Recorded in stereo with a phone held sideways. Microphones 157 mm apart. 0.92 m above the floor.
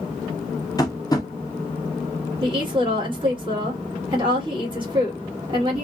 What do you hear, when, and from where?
0.8 s tapping: 25° left (ahead or behind), 0.5 m
2.4 s a woman speaking: 30° right (ahead or behind), 1.4 m